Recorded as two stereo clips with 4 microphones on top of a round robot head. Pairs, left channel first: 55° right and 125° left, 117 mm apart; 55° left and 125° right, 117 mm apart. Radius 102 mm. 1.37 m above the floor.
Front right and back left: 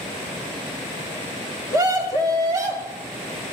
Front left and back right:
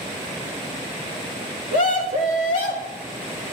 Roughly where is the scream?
Ahead left.